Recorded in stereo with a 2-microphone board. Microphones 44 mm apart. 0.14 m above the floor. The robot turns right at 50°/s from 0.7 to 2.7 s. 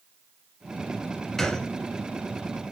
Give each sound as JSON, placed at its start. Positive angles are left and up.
{"t": 1.4, "sound": "a gunshot", "side_deg": 5, "distance_m": 1.1}